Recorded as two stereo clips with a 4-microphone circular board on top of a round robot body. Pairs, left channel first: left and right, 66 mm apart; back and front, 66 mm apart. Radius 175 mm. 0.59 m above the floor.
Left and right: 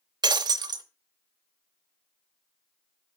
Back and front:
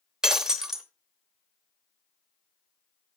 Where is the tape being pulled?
No tape being pulled in this recording.